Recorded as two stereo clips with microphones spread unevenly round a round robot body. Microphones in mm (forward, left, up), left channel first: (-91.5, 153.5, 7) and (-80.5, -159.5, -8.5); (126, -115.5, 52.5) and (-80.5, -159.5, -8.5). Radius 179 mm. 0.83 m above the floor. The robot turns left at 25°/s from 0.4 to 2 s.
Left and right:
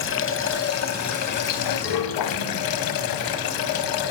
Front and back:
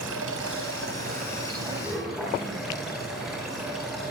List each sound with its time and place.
0.0 s running water: 140° left, 3.5 m; by 4.1 s 100° left, 3.5 m